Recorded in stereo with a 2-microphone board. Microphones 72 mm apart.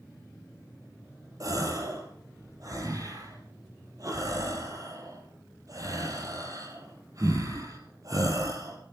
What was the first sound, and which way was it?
A gasp, 55° right (ahead or behind).